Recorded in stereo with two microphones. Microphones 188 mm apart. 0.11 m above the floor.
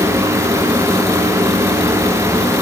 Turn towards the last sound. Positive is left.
No sound to turn to.